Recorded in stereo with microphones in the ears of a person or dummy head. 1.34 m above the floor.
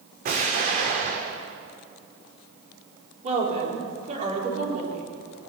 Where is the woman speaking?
45° right (ahead or behind), 4 m.